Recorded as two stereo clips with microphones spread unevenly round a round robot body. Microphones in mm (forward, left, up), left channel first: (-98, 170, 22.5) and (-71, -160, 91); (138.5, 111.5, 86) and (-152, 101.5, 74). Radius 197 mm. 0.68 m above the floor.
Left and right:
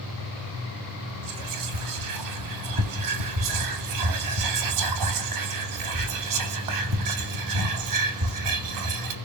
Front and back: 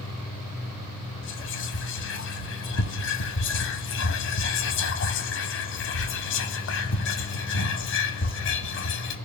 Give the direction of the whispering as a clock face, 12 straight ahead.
2 o'clock.